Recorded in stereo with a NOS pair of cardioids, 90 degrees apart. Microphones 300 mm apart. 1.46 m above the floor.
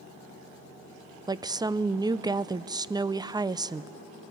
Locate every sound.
1.3 s a woman speaking: 10° right, 0.6 m